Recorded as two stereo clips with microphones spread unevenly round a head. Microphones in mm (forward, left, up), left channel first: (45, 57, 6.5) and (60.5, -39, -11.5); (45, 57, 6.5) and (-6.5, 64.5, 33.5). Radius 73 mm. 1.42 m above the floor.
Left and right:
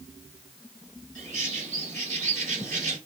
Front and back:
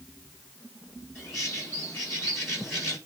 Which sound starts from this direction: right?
A bird, at 1.1 s.